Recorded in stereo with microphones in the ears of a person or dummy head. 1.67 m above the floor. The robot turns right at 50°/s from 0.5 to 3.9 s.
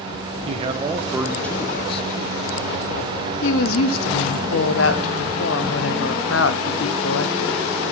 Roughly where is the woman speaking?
Left.